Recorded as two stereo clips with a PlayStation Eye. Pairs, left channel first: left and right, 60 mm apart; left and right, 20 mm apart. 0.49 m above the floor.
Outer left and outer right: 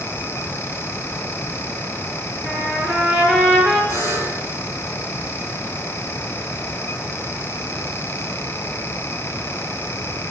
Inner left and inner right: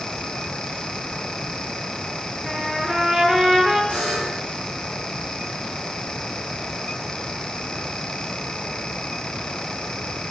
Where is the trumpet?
Centre (ahead or behind), 6.5 m.